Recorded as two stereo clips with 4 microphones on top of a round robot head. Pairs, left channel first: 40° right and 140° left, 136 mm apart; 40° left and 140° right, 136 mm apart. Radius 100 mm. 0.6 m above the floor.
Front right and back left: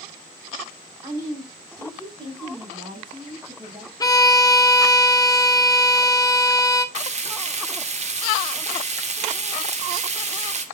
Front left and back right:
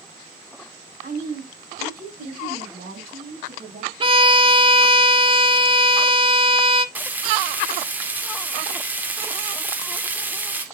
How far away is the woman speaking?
About 6 m.